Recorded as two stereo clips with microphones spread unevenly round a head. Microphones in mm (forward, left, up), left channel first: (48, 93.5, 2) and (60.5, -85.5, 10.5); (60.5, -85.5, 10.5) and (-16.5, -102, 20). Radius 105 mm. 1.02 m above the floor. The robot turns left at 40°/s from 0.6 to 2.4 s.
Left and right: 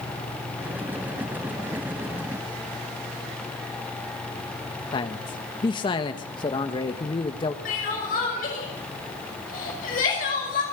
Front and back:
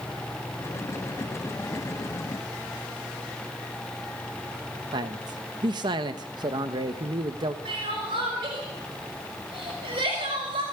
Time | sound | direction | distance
4.9 | a man speaking | 155° left | 1.2 m
7.7 | crying | 150° left | 5.5 m